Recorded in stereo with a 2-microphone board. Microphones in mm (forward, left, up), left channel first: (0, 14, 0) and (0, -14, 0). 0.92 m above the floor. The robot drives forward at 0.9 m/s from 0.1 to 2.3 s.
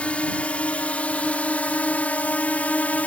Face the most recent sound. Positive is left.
turn(degrees=65)  # may be behind; listen again after turning